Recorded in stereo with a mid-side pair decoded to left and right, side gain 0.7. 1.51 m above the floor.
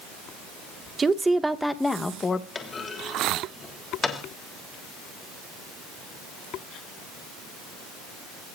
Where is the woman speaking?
25° right, 2 m; by 2.5 s 25° left, 2.5 m.